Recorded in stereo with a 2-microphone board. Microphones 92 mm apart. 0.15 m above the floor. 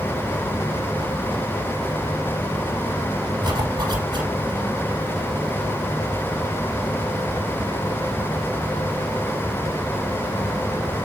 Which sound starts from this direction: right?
A zipper, at 3.4 s.